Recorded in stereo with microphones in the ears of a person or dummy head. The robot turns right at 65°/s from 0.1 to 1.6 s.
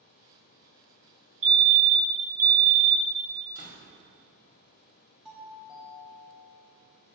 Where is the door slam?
45° left (ahead or behind), 1.1 m.